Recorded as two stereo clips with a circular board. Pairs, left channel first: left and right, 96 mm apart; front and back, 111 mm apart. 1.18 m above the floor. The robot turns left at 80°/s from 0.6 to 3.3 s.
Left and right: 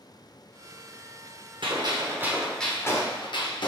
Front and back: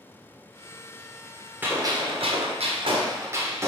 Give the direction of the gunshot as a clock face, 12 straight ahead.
4 o'clock.